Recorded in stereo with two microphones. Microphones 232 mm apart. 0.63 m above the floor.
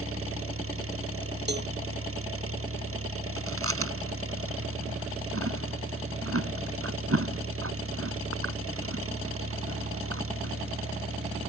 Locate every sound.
0.0 s an engine running: 70° right (ahead or behind)
1.5 s a cowbell: 50° right (ahead or behind)
3.4 s chewing: 75° right (ahead or behind)